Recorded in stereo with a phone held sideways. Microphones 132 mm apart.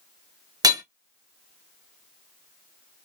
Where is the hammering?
30° right (ahead or behind), 0.9 m.